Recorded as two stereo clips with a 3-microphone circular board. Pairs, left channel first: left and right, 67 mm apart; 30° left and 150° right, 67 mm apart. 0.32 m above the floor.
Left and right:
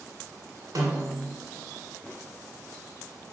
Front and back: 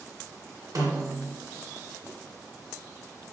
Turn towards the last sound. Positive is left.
turn(degrees=-125)